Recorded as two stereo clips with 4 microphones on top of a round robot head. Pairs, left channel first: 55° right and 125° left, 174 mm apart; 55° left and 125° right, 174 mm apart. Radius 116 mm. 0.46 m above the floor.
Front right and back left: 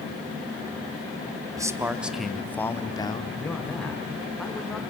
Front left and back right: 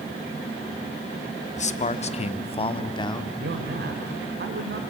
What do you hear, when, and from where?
1.6 s a man speaking: 65° left, 1.2 m; by 3.3 s 5° right, 1.3 m
3.4 s a man speaking: 145° right, 1.8 m